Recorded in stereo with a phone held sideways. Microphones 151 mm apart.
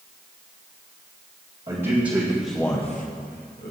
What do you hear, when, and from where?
1.7 s a man speaking: 40° right (ahead or behind), 1.5 m; by 3.7 s 85° left, 1.3 m